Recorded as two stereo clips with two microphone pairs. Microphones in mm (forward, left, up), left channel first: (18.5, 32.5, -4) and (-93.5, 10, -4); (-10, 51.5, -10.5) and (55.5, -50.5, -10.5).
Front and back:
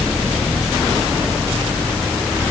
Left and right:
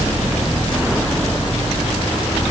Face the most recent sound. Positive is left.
No sound to turn to.